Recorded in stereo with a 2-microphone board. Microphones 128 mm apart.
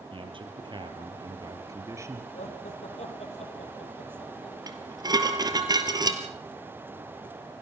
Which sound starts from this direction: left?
Laughter, at 2.3 s.